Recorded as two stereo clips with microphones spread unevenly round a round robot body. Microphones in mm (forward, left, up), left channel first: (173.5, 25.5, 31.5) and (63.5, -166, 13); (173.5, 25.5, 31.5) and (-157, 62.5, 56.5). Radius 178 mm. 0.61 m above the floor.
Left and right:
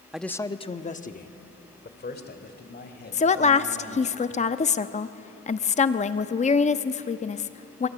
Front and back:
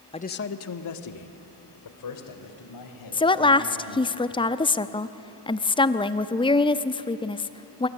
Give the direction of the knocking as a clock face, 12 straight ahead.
No knocking in this recording.